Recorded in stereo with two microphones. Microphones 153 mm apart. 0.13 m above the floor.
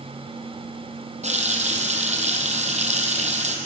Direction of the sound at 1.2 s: 45° right (ahead or behind).